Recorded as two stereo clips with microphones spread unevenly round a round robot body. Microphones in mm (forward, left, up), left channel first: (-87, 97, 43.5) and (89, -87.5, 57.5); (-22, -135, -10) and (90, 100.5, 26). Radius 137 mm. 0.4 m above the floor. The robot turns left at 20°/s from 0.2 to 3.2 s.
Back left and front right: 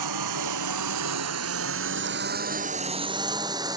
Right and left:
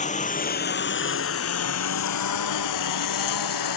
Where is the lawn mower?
50° right; by 3.8 s 120° right.